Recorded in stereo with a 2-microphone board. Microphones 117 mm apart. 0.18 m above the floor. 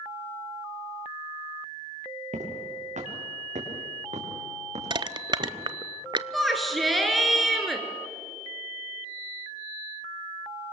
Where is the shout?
Centre (ahead or behind), 3.5 m.